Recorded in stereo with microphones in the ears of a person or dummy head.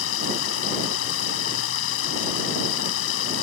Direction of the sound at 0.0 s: 80° left.